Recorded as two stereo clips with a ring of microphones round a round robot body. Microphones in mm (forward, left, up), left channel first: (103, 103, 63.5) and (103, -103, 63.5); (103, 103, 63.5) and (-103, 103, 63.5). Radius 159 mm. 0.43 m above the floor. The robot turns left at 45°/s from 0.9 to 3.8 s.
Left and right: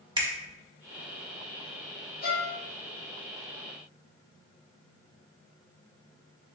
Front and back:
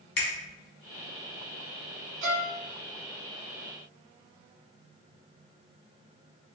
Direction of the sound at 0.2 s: 25° right.